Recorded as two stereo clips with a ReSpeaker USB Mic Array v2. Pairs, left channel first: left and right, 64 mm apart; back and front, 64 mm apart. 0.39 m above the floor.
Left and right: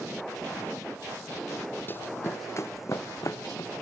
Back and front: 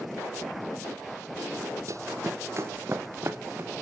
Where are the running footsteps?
35° left, 0.9 m; by 3.7 s 55° left, 2 m.